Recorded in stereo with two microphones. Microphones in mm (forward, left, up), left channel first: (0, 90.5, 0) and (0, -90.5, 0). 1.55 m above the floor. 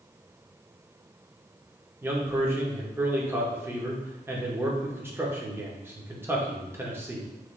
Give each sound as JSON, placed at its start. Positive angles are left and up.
{"t": 2.0, "sound": "a man speaking", "side_deg": -15, "distance_m": 0.8}